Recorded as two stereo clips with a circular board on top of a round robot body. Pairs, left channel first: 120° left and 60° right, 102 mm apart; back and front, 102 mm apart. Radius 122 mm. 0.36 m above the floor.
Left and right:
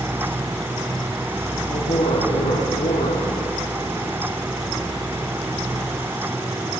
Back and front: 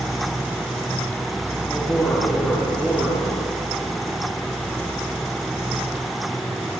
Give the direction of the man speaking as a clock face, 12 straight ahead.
9 o'clock.